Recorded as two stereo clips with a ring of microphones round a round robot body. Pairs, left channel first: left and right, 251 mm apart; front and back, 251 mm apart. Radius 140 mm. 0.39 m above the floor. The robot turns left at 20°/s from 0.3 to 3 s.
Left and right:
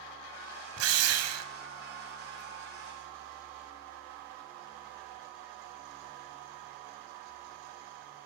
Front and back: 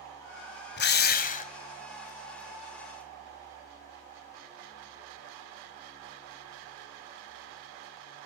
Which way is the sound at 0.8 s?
50° right.